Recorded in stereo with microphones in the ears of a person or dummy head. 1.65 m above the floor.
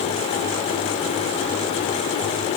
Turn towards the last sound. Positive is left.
No sound to turn to.